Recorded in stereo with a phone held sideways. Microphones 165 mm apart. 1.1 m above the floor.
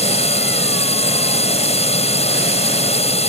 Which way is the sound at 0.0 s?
35° left (ahead or behind).